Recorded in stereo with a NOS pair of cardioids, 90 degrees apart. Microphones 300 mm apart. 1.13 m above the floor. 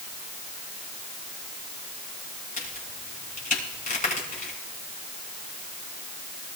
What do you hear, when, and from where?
2.6 s a crack: 25° left, 6 m